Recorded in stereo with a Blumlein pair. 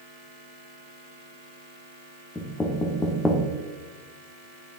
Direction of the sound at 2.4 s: 10° left.